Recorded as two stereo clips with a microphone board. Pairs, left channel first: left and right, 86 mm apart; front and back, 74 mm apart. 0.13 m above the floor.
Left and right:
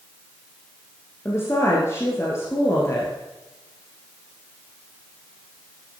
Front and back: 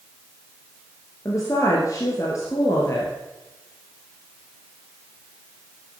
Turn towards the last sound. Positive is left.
turn(degrees=35)